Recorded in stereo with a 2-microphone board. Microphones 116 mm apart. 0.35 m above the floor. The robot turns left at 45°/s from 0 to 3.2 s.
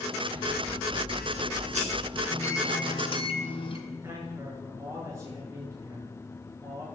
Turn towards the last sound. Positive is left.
turn(degrees=-25)  # may be behind; listen again after turning